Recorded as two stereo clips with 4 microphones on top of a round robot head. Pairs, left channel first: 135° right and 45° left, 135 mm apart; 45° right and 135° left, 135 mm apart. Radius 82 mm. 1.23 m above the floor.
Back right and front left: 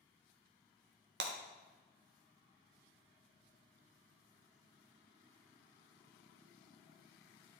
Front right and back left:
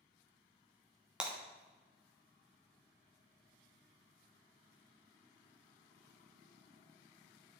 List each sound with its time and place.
1.2 s breaking glass: 50° left, 1.2 m